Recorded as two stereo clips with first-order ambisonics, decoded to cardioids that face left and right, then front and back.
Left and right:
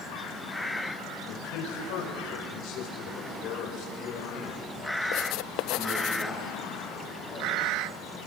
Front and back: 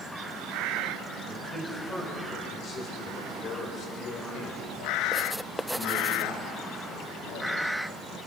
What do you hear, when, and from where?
1.3 s a man speaking: 85° left, 6 m; by 8.2 s 10° right, 7.5 m